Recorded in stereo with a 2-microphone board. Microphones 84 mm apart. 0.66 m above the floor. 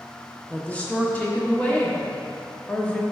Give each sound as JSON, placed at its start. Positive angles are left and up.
{"t": 0.5, "sound": "a woman speaking", "side_deg": 20, "distance_m": 0.8}